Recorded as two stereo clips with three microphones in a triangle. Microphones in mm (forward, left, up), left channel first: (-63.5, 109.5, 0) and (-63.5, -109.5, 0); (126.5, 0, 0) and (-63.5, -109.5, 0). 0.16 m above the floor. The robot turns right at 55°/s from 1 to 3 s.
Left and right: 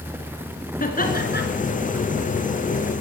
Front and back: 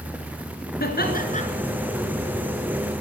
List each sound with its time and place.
0.8 s laughter: 55° left, 2 m; by 1.4 s 80° left, 2 m